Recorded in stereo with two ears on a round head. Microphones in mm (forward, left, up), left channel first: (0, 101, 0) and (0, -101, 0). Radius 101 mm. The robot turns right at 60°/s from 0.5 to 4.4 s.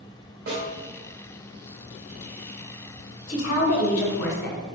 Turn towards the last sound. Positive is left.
turn(degrees=130)